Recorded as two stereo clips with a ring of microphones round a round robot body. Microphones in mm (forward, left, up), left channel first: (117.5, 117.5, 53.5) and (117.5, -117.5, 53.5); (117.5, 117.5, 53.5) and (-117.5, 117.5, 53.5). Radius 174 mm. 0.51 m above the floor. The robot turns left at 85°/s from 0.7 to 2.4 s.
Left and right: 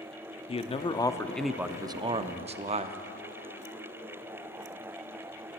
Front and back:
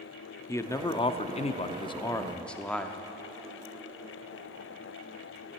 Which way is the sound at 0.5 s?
65° left.